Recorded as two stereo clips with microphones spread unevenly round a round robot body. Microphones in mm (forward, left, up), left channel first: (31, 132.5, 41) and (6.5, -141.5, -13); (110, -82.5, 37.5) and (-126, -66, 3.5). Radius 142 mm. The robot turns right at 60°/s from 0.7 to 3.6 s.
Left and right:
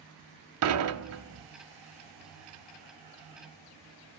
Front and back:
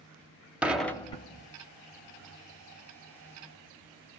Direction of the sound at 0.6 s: 105° right.